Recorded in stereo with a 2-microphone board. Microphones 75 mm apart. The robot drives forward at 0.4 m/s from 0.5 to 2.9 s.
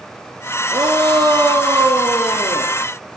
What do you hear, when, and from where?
0.7 s a shout: 65° right (ahead or behind), 3 m; by 2.7 s 60° right (ahead or behind), 3 m